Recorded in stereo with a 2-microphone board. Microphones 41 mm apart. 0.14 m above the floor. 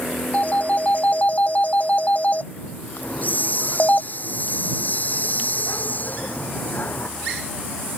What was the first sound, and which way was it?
A phone ringing, 40° left (ahead or behind).